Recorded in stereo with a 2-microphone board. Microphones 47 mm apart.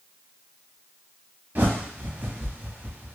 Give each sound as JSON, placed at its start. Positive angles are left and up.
{"t": 1.6, "sound": "a bird", "side_deg": -40, "distance_m": 0.8}